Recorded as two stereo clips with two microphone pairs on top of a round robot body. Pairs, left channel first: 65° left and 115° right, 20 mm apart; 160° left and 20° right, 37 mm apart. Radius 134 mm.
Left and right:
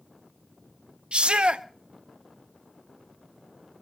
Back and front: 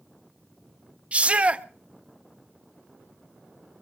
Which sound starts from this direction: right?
A shout, at 1.1 s.